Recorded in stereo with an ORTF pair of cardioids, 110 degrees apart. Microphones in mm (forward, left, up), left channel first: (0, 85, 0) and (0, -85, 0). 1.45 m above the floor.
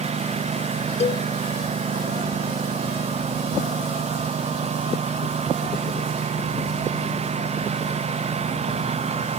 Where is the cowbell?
35° left.